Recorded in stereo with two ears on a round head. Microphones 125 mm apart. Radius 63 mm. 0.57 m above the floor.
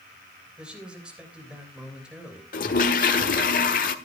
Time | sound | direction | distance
0.6 | a man speaking | 5° right (ahead or behind) | 3 m
2.5 | a toilet flushing | 65° left (ahead or behind) | 1.5 m